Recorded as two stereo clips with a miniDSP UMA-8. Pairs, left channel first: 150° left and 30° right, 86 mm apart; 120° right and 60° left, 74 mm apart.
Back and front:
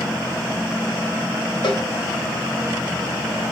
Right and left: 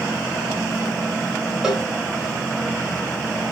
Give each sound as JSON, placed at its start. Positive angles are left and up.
{"t": 1.6, "sound": "a cowbell", "azimuth_deg": 140, "distance_m": 1.7}